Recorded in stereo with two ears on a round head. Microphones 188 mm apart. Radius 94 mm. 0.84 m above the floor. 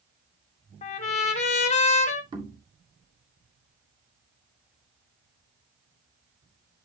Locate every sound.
0.8 s a trumpet: 35° left (ahead or behind), 1.3 m
2.3 s knocking: 25° right (ahead or behind), 2.0 m